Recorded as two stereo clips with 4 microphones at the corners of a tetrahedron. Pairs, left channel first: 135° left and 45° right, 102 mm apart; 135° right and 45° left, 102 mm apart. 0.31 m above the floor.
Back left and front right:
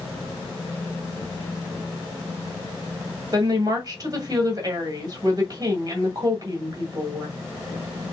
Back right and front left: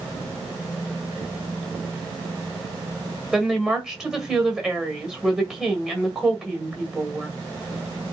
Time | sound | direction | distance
3.3 | a woman speaking | 35° right | 1.7 m